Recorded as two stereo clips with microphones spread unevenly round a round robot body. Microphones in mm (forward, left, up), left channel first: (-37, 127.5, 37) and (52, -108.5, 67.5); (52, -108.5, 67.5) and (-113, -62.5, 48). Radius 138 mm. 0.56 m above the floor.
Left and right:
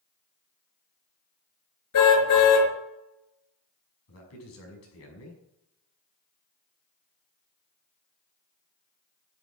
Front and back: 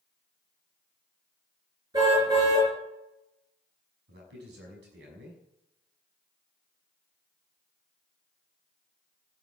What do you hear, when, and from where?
1.9 s a car horn: 90° left, 4.5 m
4.1 s a man speaking: 140° left, 6 m